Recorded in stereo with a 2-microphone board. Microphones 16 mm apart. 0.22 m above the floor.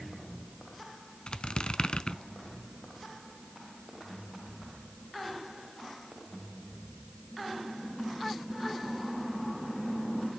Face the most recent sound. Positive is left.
turn(degrees=65)  # may be behind; listen again after turning